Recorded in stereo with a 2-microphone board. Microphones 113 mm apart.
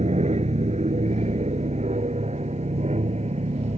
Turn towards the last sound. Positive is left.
turn(degrees=-65)  # may be behind; listen again after turning